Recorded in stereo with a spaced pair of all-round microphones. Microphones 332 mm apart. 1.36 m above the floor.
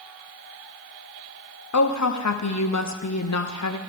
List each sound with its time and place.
1.7 s a woman speaking: 55° left (ahead or behind), 0.6 m